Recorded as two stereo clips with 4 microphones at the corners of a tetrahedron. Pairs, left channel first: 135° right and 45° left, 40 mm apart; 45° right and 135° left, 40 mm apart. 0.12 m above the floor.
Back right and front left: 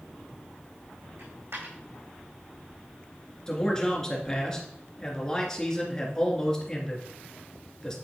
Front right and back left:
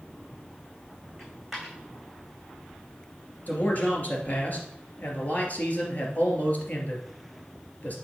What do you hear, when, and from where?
1.2 s a dropped coin: 50° left, 4 m
3.5 s a man speaking: 60° right, 2.5 m